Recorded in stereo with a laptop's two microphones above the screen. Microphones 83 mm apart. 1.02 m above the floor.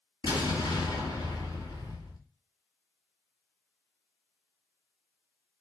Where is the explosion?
70° left (ahead or behind), 2.5 m.